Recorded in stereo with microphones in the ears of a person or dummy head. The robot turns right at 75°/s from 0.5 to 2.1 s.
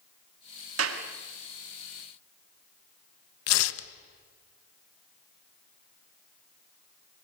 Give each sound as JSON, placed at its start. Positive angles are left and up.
{"t": 0.8, "sound": "a clap", "side_deg": -85, "distance_m": 2.0}
{"t": 3.5, "sound": "tearing paper", "side_deg": 70, "distance_m": 1.1}